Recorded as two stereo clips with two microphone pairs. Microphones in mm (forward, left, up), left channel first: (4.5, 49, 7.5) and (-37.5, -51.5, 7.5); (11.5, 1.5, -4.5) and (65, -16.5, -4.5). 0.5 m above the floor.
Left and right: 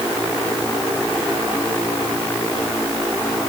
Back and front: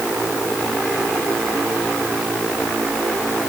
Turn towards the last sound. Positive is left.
No sound to turn to.